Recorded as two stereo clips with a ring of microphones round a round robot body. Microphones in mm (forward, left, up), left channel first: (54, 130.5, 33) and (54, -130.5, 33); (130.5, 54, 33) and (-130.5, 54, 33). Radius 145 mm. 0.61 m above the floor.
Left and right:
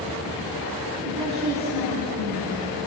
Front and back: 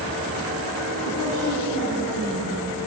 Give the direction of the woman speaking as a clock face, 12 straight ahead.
3 o'clock.